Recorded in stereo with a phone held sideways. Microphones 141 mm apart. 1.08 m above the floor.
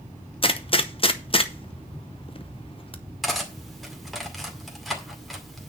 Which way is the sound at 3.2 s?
Centre (ahead or behind).